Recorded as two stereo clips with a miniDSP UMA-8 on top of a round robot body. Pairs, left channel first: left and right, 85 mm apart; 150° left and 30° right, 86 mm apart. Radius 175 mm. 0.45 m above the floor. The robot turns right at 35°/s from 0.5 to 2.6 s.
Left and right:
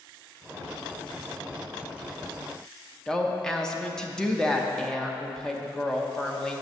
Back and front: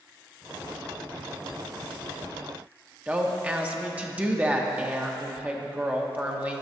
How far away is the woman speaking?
About 1.0 m.